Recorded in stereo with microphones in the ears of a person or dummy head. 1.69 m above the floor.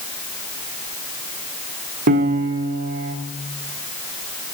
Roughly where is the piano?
Right.